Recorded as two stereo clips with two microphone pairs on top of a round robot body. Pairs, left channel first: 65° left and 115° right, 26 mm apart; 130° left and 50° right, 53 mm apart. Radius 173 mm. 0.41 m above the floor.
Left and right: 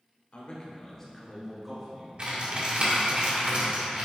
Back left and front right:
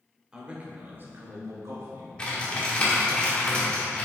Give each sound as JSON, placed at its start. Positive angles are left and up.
{"t": 0.3, "sound": "a man speaking", "azimuth_deg": 25, "distance_m": 1.7}
{"t": 2.2, "sound": "typing on a keyboard", "azimuth_deg": -155, "distance_m": 2.0}